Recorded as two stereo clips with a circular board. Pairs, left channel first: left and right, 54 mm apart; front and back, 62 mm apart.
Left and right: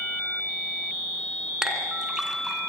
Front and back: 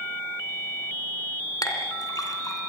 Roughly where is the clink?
Ahead.